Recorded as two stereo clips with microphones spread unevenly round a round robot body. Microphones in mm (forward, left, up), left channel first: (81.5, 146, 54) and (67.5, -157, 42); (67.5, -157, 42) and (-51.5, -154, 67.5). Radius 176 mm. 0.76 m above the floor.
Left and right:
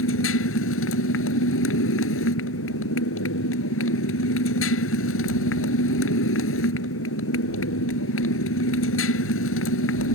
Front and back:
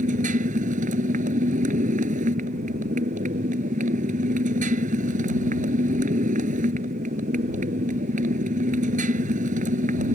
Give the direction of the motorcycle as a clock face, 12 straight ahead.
7 o'clock.